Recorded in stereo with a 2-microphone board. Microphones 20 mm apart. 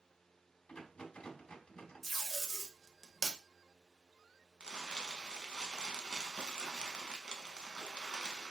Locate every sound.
0.7 s a rattle: 50° left (ahead or behind), 0.7 m
2.0 s tape being pulled: centre (ahead or behind), 0.7 m
4.6 s crumpling: 40° right (ahead or behind), 0.6 m